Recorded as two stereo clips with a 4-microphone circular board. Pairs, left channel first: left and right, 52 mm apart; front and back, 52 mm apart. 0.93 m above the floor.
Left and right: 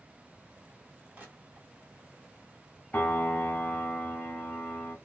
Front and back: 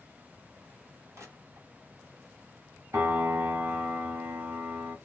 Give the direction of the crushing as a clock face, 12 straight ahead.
5 o'clock.